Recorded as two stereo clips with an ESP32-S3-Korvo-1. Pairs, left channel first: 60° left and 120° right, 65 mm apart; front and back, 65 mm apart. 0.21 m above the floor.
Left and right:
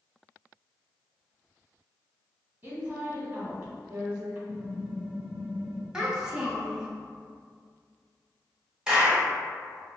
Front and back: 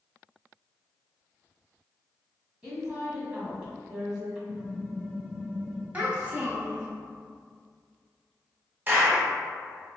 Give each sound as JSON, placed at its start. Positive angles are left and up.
{"t": 2.6, "sound": "a woman speaking", "azimuth_deg": -110, "distance_m": 1.1}
{"t": 4.5, "sound": "typing on a keyboard", "azimuth_deg": -115, "distance_m": 2.0}
{"t": 5.9, "sound": "a child speaking", "azimuth_deg": 180, "distance_m": 0.5}
{"t": 8.9, "sound": "a clap", "azimuth_deg": 180, "distance_m": 0.9}